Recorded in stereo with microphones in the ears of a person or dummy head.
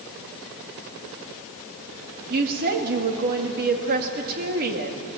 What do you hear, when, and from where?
2.3 s a woman speaking: 50° right (ahead or behind), 2 m